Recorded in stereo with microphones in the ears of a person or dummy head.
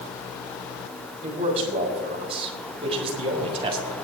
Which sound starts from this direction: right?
A man speaking, at 1.2 s.